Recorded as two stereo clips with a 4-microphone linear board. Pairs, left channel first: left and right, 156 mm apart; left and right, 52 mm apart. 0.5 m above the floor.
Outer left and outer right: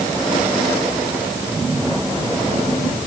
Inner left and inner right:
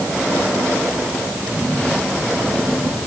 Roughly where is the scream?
I don't hear a scream.